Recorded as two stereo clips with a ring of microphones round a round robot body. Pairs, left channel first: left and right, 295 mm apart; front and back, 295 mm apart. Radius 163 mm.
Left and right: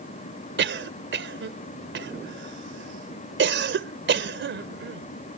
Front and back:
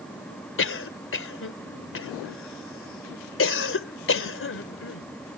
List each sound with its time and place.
0.6 s a cough: 40° right